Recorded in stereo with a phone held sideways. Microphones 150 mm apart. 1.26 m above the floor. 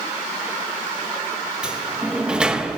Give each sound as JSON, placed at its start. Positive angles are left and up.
{"t": 1.6, "sound": "a sliding door", "side_deg": -5, "distance_m": 0.9}